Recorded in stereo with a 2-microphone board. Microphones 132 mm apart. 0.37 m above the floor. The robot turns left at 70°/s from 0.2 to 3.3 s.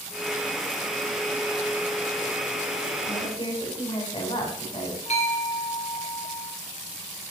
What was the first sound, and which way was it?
A woman speaking, 35° left (ahead or behind).